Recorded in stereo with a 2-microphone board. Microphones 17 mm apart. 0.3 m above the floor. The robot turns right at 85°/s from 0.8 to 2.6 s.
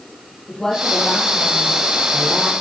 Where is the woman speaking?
45° left, 8 m; by 2.5 s 170° right, 8 m.